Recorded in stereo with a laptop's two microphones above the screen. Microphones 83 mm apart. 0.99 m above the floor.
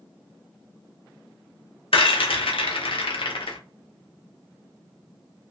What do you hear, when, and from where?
1.9 s a rattle: 80° left, 0.9 m